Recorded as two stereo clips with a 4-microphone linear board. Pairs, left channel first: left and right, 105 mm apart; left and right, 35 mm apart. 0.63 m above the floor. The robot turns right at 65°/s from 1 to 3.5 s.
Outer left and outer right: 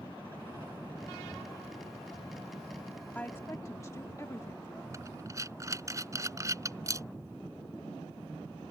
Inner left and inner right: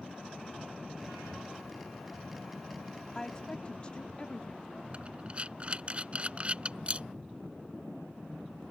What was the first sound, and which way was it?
A woman speaking, 15° left (ahead or behind).